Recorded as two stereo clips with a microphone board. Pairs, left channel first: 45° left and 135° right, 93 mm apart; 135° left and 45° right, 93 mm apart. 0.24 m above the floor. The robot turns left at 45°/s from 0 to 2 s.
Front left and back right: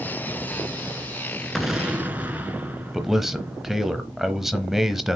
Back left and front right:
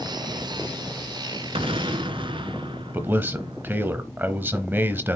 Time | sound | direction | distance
1.6 | an explosion | 40° right | 1.0 m
2.9 | a man speaking | 55° right | 0.9 m